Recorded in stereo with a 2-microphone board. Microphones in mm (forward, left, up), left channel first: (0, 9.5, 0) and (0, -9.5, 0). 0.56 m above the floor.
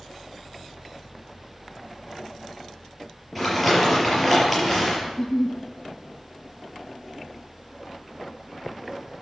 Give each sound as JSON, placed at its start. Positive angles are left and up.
{"t": 3.4, "sound": "crumpling", "side_deg": -5, "distance_m": 5.5}
{"t": 5.1, "sound": "a giggle", "side_deg": 25, "distance_m": 1.8}